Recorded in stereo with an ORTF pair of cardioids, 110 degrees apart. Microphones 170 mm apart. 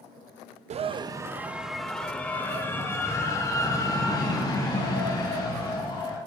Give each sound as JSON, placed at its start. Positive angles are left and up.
{"t": 0.7, "sound": "a scream", "azimuth_deg": -40, "distance_m": 0.6}